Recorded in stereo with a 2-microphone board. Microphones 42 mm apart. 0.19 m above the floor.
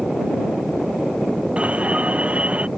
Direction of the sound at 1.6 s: 30° right (ahead or behind).